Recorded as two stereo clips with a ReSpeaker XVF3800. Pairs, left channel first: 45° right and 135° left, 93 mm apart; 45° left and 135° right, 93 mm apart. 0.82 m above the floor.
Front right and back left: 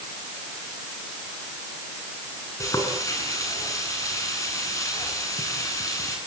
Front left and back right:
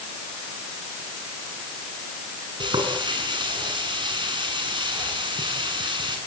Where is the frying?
100° right, 8 m.